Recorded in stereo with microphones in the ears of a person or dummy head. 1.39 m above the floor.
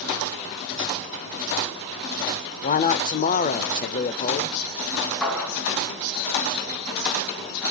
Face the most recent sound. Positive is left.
turn(degrees=-5)  # may be behind; listen again after turning